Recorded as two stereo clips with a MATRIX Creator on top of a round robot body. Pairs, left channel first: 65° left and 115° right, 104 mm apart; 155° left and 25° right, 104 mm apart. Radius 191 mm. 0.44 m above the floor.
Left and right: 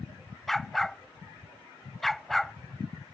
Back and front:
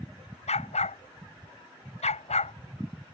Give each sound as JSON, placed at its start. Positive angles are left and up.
{"t": 0.5, "sound": "a dog barking", "azimuth_deg": 155}